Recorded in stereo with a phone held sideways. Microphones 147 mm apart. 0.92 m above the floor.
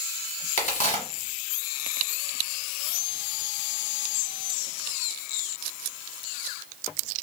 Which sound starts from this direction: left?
A crack, at 0.6 s.